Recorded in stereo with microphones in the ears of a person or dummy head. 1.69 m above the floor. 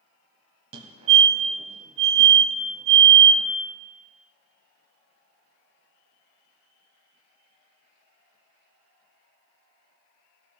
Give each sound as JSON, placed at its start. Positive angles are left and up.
{"t": 0.7, "sound": "a fire alarm", "side_deg": -35, "distance_m": 1.3}